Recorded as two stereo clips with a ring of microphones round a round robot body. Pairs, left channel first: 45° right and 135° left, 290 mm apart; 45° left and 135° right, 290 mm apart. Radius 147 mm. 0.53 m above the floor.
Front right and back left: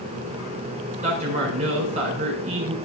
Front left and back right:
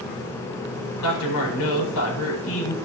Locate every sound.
1.0 s a man speaking: 70° left, 4.5 m